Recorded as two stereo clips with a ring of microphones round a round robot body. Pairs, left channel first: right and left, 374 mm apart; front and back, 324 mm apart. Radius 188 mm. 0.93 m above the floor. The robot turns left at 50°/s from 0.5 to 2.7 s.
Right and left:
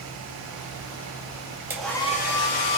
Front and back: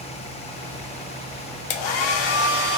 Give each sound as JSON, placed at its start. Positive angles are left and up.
{"t": 1.7, "sound": "a hair dryer", "azimuth_deg": 5, "distance_m": 0.7}